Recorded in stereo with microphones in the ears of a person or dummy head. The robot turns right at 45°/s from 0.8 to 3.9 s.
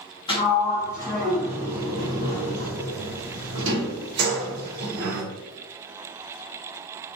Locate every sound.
0.3 s a sliding door: 20° left (ahead or behind), 1.2 m; by 5.2 s 60° right (ahead or behind), 1.2 m